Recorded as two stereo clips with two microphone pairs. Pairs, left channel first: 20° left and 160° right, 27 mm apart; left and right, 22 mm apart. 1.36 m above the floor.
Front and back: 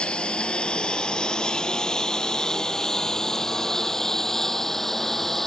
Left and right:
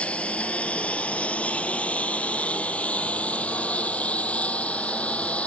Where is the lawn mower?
70° left; by 5.5 s 100° left.